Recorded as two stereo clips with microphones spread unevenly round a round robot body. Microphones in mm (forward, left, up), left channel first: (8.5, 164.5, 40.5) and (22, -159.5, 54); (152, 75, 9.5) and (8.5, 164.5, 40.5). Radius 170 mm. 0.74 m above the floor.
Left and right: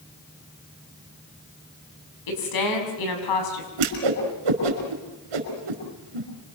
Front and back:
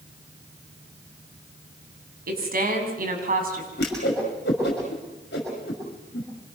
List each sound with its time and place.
2.3 s a woman speaking: 120° left, 6.5 m; by 3.7 s 110° left, 6.5 m
3.8 s a whoosh: 90° right, 5.5 m